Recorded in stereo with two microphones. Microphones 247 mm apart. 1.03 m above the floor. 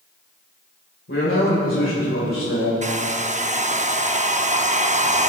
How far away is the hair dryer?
About 0.6 m.